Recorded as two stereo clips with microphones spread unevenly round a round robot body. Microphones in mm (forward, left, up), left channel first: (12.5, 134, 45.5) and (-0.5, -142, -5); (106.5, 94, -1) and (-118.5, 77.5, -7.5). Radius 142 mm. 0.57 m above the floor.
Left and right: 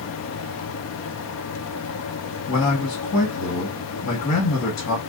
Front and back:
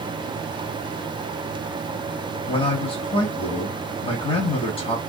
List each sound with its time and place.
2.5 s a man speaking: 45° left, 1.1 m